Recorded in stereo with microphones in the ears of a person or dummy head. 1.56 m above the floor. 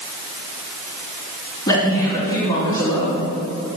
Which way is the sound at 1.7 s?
25° left (ahead or behind).